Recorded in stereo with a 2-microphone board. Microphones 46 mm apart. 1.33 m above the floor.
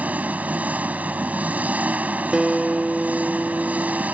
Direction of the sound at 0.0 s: 30° right (ahead or behind).